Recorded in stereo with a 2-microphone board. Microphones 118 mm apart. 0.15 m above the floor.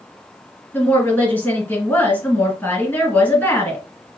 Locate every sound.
0.7 s a woman speaking: 20° left (ahead or behind), 2.0 m